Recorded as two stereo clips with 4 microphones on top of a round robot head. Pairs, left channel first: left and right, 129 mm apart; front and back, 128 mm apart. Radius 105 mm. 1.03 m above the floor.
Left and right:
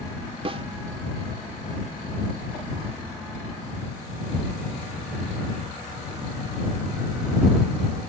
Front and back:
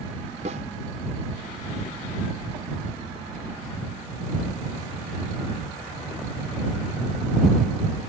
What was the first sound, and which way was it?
A snare drum, 135° right.